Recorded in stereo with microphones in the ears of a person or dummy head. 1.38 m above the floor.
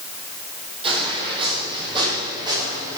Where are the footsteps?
30° right (ahead or behind), 2.5 m; by 3.0 s 20° right (ahead or behind), 4.5 m.